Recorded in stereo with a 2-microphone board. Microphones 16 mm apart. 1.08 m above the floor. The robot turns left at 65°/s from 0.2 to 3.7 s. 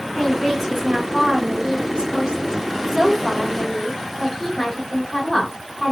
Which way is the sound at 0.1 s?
15° left.